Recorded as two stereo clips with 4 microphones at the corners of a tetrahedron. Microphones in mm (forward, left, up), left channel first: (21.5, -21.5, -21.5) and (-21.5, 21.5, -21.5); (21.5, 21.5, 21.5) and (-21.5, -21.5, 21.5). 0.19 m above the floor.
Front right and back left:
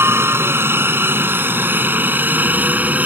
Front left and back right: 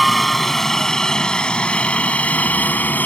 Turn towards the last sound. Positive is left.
turn(degrees=90)